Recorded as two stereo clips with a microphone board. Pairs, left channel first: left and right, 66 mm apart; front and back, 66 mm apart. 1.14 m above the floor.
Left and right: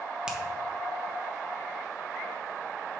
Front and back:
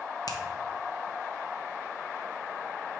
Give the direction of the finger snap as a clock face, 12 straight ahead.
12 o'clock.